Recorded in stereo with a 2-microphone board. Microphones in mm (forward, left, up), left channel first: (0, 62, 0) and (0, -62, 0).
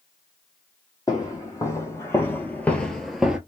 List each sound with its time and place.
1.1 s footsteps: 25° left (ahead or behind), 1.8 m; by 3.4 s 5° right (ahead or behind), 0.9 m